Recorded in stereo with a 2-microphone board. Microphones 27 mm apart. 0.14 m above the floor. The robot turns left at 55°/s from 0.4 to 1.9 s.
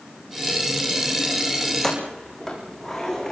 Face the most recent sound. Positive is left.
turn(degrees=10)  # may be behind; listen again after turning